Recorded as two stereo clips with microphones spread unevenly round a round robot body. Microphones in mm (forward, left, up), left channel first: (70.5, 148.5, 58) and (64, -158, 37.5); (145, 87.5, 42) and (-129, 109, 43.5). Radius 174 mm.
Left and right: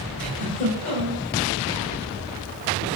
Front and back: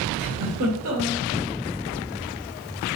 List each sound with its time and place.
0.2 s a giggle: 155° left, 1.6 m